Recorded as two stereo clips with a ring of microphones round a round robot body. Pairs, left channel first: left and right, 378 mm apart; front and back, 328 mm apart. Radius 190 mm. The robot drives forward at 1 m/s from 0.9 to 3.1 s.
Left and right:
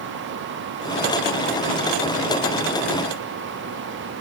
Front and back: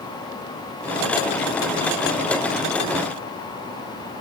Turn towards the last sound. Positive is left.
No sound to turn to.